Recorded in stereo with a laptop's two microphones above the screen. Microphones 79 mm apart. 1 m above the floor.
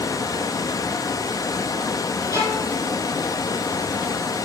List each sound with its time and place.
0.0 s running water: 50° left (ahead or behind), 0.8 m
2.3 s a violin: 40° left (ahead or behind), 6.5 m